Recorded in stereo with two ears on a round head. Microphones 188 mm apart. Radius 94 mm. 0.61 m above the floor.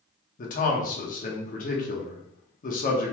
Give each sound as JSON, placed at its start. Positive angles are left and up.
{"t": 0.4, "sound": "a man speaking", "side_deg": 40, "distance_m": 0.9}